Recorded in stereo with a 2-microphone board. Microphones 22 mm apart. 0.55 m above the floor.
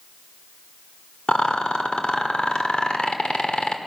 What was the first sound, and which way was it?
A rattle, 55° left (ahead or behind).